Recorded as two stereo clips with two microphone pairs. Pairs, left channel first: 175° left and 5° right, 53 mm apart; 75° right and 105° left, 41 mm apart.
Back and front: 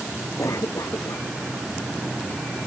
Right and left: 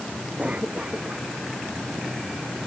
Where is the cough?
160° left.